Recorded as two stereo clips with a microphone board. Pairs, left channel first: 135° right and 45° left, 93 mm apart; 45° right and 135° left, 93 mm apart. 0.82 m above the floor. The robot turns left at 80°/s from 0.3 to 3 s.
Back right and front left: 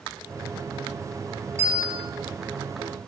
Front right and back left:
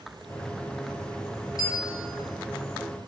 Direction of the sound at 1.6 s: 110° left.